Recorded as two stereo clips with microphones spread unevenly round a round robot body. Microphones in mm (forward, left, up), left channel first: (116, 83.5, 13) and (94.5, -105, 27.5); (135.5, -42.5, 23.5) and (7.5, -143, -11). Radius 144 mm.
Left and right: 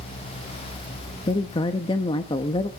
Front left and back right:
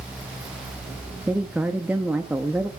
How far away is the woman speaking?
About 0.6 m.